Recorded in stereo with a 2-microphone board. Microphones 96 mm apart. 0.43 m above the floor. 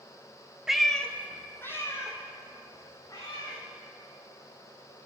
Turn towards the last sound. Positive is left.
turn(degrees=35)  # may be behind; listen again after turning